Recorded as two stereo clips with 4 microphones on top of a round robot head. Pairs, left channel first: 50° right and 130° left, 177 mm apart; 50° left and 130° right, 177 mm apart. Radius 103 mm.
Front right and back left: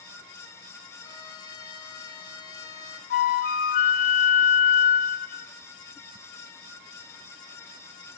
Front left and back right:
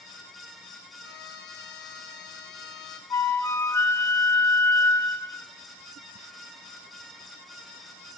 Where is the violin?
15° left, 2 m.